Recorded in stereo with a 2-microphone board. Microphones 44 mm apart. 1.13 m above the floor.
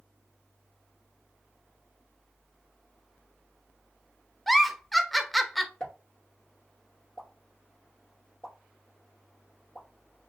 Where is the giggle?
Centre (ahead or behind), 0.6 m.